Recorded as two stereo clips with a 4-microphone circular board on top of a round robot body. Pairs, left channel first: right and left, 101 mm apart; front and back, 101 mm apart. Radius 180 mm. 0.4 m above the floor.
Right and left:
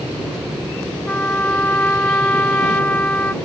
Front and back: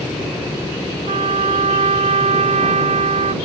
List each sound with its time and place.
1.1 s a trumpet: 165° right